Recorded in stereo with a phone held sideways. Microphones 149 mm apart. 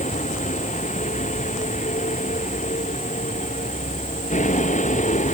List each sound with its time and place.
0.0 s a vehicle: 60° left (ahead or behind)